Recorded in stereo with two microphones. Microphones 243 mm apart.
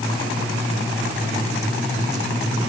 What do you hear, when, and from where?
Only background noise.